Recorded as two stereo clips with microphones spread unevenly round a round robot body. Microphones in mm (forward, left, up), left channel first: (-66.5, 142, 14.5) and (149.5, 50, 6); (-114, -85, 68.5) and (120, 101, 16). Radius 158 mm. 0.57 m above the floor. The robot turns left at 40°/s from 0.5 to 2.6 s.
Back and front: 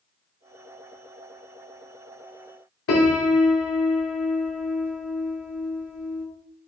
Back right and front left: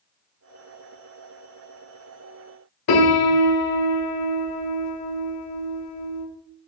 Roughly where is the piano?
Behind.